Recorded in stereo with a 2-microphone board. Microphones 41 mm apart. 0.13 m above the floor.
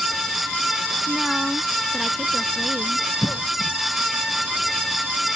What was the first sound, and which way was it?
A woman speaking, 5° right (ahead or behind).